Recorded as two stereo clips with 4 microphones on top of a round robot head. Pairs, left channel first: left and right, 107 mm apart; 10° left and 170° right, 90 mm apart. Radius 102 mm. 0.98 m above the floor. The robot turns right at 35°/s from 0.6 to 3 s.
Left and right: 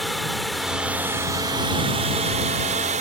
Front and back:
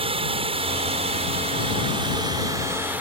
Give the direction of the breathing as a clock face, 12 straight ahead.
No breathing in this recording.